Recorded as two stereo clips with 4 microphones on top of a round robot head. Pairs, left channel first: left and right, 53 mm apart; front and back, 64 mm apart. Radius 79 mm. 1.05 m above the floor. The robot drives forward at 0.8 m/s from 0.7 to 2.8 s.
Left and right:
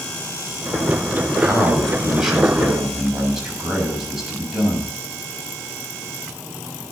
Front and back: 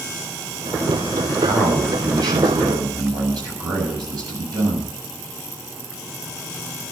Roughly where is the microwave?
No microwave in this recording.